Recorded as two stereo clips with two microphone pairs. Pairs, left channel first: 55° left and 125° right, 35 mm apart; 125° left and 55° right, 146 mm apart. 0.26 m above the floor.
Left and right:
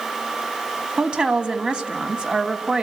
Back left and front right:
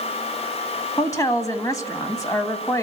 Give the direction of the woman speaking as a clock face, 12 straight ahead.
6 o'clock.